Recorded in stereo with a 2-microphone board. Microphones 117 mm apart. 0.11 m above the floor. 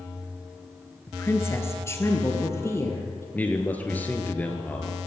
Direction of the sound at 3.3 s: 15° left (ahead or behind).